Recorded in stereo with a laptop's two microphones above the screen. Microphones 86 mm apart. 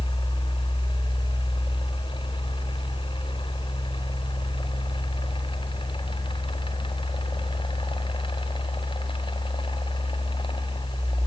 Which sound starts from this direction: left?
A fan, at 0.0 s.